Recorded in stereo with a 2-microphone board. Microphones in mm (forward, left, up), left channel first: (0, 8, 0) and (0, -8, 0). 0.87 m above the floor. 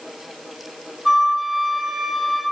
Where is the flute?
5° right (ahead or behind), 3 m.